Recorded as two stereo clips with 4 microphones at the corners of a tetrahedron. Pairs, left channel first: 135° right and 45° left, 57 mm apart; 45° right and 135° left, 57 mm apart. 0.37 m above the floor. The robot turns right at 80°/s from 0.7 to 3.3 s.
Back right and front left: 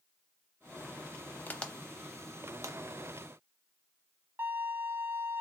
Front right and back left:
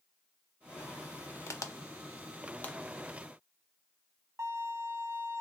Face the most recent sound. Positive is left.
turn(degrees=95)